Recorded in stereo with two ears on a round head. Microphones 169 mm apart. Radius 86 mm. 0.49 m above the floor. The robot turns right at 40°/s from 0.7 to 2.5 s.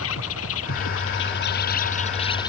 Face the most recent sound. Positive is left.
turn(degrees=160)